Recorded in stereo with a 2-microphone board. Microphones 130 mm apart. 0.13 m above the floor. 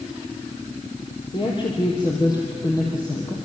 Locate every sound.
1.3 s a woman speaking: 40° left (ahead or behind), 3.5 m; by 3.3 s 25° left (ahead or behind), 4 m